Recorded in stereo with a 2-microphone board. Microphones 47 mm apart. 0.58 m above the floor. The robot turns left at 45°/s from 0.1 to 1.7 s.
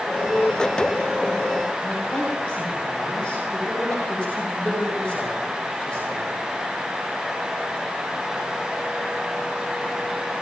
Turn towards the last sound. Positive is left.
turn(degrees=25)  # may be behind; listen again after turning